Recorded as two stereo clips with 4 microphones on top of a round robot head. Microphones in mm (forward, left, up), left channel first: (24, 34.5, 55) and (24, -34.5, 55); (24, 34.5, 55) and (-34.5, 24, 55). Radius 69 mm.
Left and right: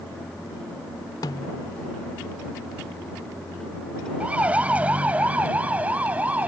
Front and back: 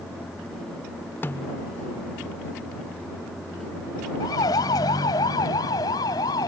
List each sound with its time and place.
1.2 s a snare drum: 65° left
4.2 s a siren: 20° right